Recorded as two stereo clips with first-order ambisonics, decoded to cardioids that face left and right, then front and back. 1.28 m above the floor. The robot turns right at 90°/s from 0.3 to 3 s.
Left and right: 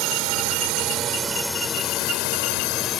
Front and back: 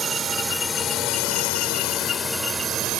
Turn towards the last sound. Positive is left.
turn(degrees=145)